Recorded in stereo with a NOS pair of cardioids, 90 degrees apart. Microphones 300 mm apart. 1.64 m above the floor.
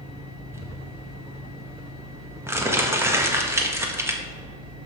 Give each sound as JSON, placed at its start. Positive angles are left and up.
{"t": 0.5, "sound": "crumpling", "azimuth_deg": -10, "distance_m": 1.8}